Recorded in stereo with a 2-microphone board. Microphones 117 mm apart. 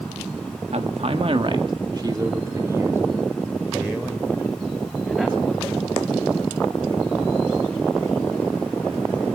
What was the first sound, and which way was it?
A man speaking, 65° right (ahead or behind).